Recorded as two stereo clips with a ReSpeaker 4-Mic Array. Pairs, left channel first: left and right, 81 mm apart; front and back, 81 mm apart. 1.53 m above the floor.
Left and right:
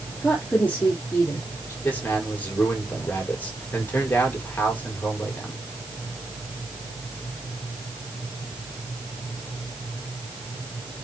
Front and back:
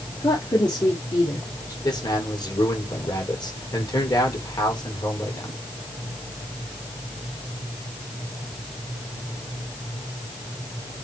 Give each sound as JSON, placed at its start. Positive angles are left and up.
{"t": 0.2, "sound": "a woman speaking", "azimuth_deg": 15, "distance_m": 3.5}
{"t": 1.8, "sound": "a man speaking", "azimuth_deg": 25, "distance_m": 5.0}